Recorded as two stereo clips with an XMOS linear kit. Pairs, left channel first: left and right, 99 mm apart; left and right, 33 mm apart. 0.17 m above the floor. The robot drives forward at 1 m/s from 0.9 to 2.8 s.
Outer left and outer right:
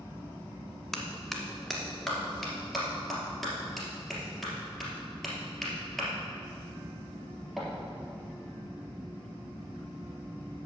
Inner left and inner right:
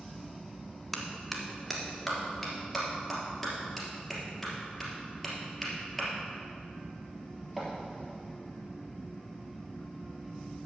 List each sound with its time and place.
0.9 s a clap: 5° left (ahead or behind), 1.1 m; by 7.7 s centre (ahead or behind), 2.5 m